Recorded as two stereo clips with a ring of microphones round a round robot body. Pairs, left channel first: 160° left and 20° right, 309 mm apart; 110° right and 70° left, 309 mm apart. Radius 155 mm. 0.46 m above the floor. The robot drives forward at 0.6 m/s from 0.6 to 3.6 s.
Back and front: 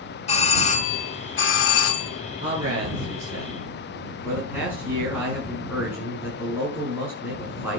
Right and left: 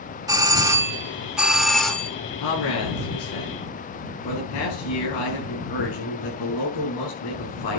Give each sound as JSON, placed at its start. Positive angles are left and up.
{"t": 0.3, "sound": "a doorbell", "azimuth_deg": 130, "distance_m": 1.3}
{"t": 2.4, "sound": "a man speaking", "azimuth_deg": -100, "distance_m": 6.5}